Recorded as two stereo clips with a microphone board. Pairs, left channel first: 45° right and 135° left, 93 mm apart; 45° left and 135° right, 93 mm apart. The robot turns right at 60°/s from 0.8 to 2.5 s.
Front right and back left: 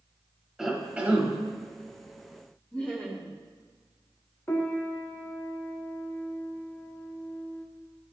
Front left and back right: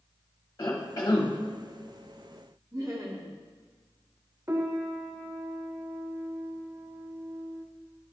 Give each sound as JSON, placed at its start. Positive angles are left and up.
{"t": 0.6, "sound": "a cough", "azimuth_deg": 55, "distance_m": 0.8}
{"t": 2.7, "sound": "laughter", "azimuth_deg": -110, "distance_m": 1.1}
{"t": 4.5, "sound": "a piano", "azimuth_deg": -95, "distance_m": 0.7}